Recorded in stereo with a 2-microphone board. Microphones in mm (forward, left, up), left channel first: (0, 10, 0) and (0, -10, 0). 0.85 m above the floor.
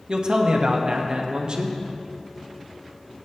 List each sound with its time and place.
0.1 s a man speaking: 45° right (ahead or behind), 1.3 m